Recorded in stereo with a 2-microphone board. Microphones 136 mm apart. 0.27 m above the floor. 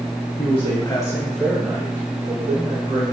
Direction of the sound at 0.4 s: 45° left (ahead or behind).